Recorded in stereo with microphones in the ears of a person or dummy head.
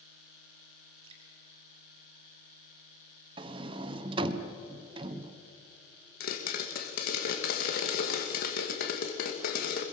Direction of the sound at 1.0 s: 30° right (ahead or behind).